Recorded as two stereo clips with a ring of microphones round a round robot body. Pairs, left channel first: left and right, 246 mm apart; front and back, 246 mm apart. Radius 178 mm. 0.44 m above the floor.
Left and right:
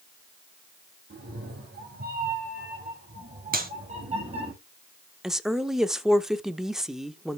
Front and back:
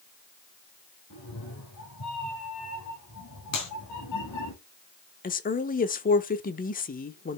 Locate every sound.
1.1 s a cat meowing: 45° right, 4.5 m; by 4.5 s 25° right, 5 m
3.5 s a clap: 35° right, 4 m
5.2 s a woman speaking: 5° right, 1.1 m